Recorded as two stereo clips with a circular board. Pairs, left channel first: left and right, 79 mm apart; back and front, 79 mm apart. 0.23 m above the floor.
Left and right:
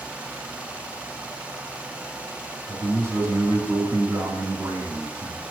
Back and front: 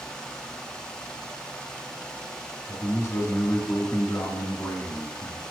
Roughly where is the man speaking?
Behind right.